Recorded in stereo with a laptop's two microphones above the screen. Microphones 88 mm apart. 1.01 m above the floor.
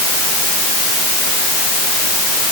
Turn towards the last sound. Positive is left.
No sound to turn to.